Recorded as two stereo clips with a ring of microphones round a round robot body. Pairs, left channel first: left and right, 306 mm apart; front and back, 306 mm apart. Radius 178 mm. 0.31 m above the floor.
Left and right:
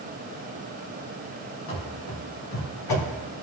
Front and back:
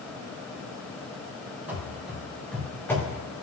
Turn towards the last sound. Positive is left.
turn(degrees=75)